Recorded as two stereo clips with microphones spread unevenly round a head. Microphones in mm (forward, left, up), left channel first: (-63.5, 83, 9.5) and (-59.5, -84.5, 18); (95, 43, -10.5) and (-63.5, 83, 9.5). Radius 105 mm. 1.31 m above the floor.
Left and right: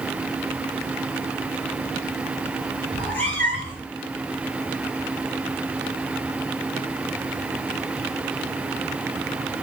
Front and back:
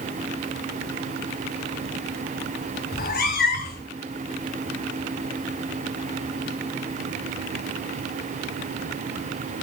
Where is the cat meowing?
10° left, 1.8 m.